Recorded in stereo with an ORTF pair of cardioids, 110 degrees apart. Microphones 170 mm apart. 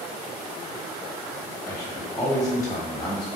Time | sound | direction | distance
1.7 | a man speaking | 20° left | 1.2 m